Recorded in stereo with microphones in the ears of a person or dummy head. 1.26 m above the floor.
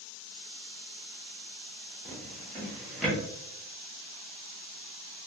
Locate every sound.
2.0 s a drawer: 5° left (ahead or behind), 1.1 m